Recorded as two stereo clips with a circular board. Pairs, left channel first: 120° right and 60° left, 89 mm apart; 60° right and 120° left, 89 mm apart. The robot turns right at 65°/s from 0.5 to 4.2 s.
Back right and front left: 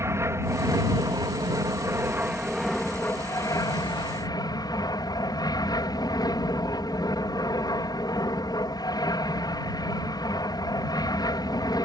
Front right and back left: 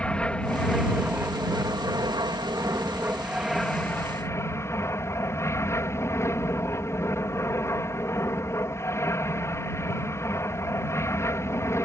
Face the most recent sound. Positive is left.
turn(degrees=-105)